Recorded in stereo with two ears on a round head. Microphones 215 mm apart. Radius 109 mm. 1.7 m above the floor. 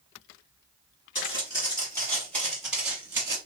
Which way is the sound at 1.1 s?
25° left (ahead or behind).